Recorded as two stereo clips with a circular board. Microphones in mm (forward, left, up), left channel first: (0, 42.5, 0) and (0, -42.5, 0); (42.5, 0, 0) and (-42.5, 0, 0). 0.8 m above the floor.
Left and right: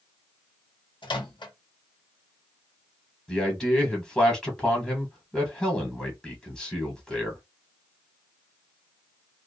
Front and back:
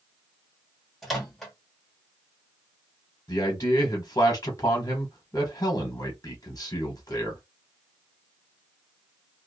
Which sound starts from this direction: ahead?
A man speaking, at 3.3 s.